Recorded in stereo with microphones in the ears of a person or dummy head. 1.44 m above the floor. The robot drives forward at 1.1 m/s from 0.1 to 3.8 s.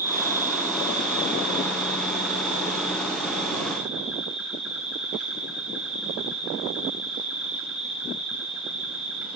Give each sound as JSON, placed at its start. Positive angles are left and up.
{"t": 0.0, "sound": "an insect", "side_deg": -10, "distance_m": 2.0}